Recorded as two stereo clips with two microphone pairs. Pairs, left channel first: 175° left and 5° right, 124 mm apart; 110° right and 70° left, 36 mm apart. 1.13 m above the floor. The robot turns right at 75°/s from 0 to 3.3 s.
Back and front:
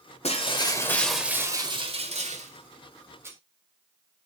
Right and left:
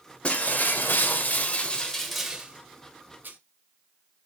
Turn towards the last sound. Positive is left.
turn(degrees=70)